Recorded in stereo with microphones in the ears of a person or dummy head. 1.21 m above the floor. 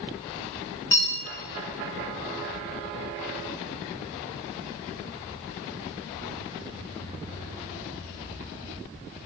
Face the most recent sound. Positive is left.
turn(degrees=15)  # may be behind; listen again after turning